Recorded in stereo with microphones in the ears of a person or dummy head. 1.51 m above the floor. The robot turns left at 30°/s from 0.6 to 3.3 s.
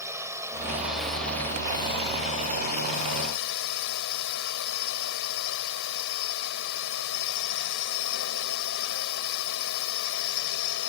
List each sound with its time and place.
0.0 s a drone: 165° right; by 10.9 s 110° left